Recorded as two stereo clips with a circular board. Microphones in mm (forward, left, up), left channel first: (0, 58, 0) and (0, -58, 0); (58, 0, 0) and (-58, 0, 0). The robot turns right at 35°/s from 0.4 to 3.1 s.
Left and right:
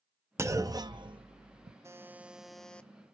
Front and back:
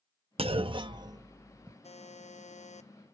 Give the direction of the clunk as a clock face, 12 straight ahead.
5 o'clock.